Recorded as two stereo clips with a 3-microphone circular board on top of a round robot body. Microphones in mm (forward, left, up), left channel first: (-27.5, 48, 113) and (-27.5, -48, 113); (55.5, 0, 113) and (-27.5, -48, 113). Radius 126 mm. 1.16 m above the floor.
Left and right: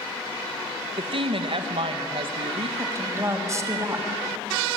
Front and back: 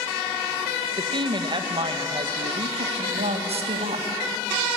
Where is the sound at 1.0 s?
115° right, 1.8 m.